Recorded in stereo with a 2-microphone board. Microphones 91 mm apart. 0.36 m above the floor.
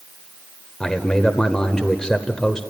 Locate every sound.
0.8 s a man speaking: 5° left (ahead or behind), 1.0 m